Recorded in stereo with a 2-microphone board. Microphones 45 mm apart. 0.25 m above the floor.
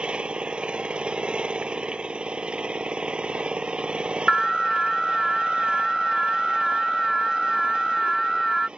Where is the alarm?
Centre (ahead or behind).